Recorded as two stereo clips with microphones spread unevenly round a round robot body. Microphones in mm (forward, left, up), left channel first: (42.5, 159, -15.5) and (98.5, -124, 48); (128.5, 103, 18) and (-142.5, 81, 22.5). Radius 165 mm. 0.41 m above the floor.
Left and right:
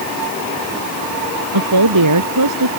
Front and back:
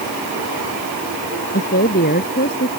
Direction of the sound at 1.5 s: 60° right.